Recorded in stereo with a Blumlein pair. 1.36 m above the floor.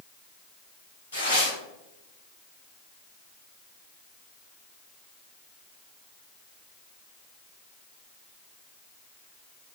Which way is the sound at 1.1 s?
65° left.